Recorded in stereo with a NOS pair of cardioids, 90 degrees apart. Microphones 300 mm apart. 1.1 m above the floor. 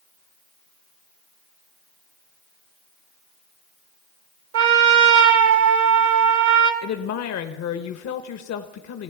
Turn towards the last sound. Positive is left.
turn(degrees=65)